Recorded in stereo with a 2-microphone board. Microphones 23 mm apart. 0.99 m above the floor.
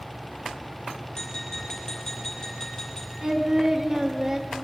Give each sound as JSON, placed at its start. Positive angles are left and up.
{"t": 1.1, "sound": "tapping", "side_deg": 25, "distance_m": 5.5}
{"t": 3.2, "sound": "singing", "side_deg": -25, "distance_m": 0.9}